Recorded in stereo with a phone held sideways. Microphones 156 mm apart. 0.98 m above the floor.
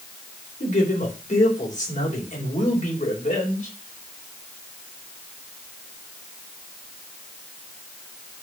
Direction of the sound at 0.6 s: 50° left (ahead or behind).